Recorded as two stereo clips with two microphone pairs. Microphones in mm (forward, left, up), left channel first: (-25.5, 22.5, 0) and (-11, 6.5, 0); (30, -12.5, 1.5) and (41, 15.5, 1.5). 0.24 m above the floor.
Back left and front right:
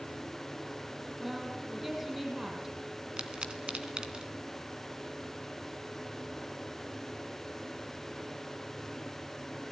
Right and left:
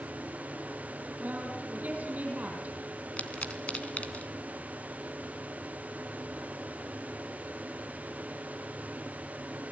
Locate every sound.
1.2 s a woman speaking: 30° left, 7.5 m
3.2 s a pop: 80° right, 2.5 m